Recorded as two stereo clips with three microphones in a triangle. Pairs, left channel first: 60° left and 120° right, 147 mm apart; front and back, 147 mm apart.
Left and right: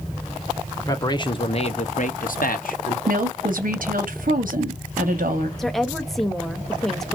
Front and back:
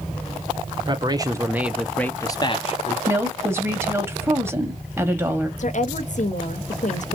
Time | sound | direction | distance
0.8 | a man speaking | 125° left | 1.0 m
3.1 | a woman speaking | 110° right | 1.1 m
5.6 | a woman speaking | 30° right | 0.7 m